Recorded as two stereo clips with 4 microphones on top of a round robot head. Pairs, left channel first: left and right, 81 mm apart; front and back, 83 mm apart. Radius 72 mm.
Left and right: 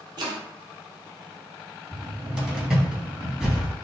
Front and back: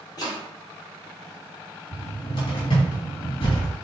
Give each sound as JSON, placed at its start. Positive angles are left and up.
{"t": 0.2, "sound": "chopping", "azimuth_deg": -60, "distance_m": 1.3}
{"t": 1.9, "sound": "a cupboard door", "azimuth_deg": -15, "distance_m": 2.5}